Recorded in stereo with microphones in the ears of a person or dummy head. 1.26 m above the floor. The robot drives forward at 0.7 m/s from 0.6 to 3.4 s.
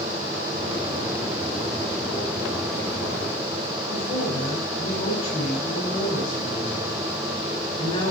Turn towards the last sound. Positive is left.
turn(degrees=30)  # may be behind; listen again after turning